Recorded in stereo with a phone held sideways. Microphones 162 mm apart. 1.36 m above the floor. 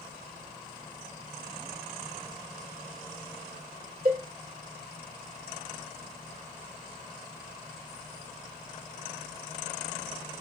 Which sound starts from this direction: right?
A cowbell, at 4.0 s.